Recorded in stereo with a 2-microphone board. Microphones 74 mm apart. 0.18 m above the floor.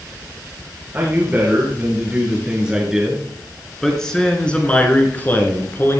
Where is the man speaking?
25° right (ahead or behind), 3.5 m; by 6.0 s 35° left (ahead or behind), 2.5 m.